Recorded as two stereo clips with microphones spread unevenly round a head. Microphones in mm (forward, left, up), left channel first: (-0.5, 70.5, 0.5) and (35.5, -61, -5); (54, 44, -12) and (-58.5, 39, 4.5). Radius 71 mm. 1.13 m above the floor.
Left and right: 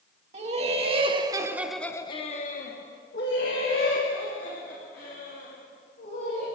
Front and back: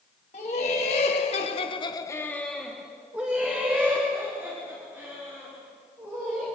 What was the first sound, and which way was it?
Laughter, 35° right.